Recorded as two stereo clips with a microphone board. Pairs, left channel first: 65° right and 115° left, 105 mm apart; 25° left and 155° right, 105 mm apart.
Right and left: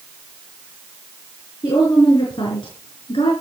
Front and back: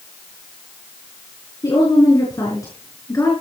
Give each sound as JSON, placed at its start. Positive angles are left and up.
{"t": 1.6, "sound": "a woman speaking", "azimuth_deg": -25, "distance_m": 5.5}